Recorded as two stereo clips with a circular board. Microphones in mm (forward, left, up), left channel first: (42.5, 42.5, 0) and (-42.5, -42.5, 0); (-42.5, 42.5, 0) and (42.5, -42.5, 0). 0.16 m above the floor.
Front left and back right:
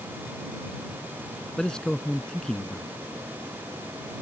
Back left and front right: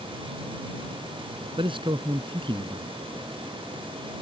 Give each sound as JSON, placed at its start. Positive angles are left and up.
{"t": 1.6, "sound": "a man speaking", "azimuth_deg": -35}